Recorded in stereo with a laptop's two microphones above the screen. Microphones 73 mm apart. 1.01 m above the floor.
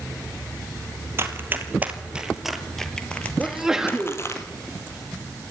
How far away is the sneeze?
About 2 m.